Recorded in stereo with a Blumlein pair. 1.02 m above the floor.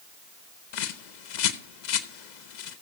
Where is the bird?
50° left, 0.9 m.